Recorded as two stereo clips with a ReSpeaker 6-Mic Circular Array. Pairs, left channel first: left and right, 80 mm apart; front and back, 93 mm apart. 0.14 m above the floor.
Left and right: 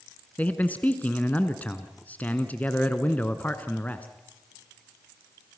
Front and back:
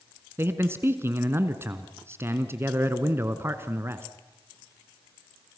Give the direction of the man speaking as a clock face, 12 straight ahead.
7 o'clock.